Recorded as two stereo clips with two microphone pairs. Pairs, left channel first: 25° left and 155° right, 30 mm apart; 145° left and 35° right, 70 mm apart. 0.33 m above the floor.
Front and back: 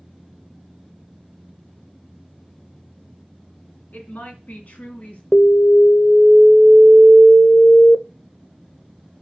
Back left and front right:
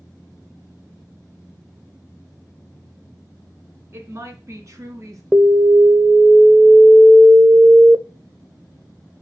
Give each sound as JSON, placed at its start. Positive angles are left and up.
{"t": 3.9, "sound": "a woman speaking", "azimuth_deg": 5, "distance_m": 3.0}
{"t": 5.3, "sound": "an alarm", "azimuth_deg": 15, "distance_m": 0.6}